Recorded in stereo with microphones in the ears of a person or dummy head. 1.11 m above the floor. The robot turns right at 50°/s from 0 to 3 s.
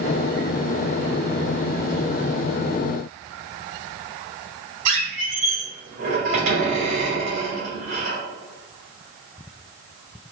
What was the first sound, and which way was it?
A squeak, 65° right (ahead or behind).